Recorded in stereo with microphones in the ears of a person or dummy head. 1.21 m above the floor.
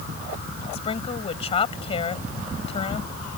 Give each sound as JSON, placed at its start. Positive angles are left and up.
{"t": 0.7, "sound": "a woman speaking", "side_deg": 40}